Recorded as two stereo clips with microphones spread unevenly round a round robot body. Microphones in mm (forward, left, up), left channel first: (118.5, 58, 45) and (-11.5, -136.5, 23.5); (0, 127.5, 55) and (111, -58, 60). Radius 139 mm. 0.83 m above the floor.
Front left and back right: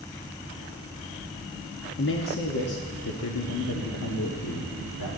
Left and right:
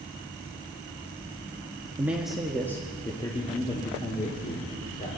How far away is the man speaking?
About 1.3 m.